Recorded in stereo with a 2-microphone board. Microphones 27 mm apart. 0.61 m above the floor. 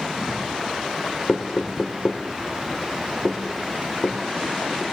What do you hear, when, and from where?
1.3 s knocking: 50° left (ahead or behind), 1.2 m